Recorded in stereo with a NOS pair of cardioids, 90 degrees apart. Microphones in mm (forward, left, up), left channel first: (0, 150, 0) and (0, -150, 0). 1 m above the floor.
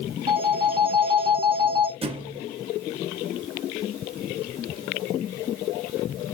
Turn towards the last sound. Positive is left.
turn(degrees=-20)